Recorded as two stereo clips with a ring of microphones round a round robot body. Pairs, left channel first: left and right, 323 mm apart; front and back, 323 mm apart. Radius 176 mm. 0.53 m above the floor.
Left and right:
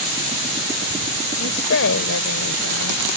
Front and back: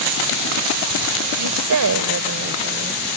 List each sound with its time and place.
1.4 s a woman speaking: 145° left; by 3.0 s 115° left